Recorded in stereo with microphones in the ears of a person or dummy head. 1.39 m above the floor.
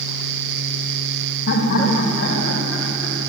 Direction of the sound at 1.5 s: 75° left (ahead or behind).